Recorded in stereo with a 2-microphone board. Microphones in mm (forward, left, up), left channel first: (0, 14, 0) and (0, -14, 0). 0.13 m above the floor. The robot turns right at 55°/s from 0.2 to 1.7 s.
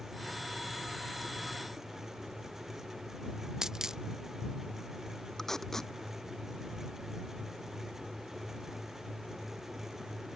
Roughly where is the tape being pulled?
Centre.